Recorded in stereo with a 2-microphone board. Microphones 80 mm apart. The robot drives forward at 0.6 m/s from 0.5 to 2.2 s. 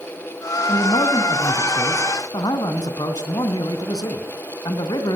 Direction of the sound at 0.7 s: 70° left (ahead or behind).